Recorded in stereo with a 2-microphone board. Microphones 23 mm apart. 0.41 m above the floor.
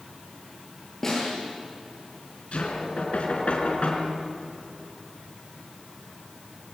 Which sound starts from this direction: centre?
A snare drum, at 1.0 s.